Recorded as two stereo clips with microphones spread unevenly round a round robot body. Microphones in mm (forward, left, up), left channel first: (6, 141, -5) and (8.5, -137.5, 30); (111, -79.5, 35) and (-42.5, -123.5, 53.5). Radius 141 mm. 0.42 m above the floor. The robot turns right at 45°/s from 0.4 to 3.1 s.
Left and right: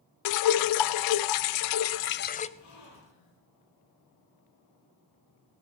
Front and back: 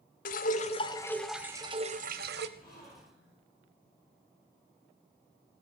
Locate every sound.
0.2 s dripping: 65° left, 0.6 m; by 2.5 s 160° left, 0.6 m
2.6 s a gasp: 60° left, 6.5 m; by 3.4 s 85° left, 6.5 m